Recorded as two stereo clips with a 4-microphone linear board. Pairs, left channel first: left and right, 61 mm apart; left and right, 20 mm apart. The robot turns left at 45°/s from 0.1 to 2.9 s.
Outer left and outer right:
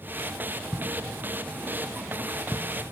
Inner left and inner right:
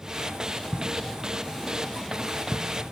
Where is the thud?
5° right (ahead or behind), 2.5 m; by 2.7 s 80° left, 2.5 m.